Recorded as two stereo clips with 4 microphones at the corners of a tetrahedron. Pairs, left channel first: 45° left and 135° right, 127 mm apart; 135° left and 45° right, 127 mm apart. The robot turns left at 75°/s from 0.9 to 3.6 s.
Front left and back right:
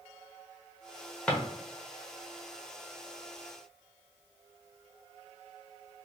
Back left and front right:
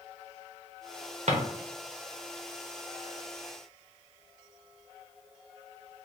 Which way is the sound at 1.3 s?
35° right.